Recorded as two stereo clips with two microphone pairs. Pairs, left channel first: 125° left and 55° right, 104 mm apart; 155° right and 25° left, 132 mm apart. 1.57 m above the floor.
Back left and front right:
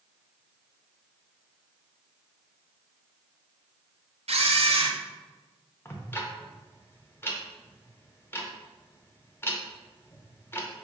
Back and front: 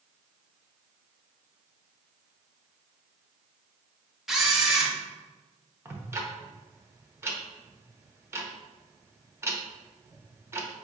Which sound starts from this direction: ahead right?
A camera shutter, at 4.3 s.